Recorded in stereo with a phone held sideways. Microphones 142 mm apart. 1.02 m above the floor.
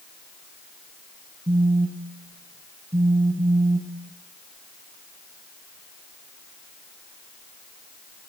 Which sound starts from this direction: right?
A phone buzzing, at 1.5 s.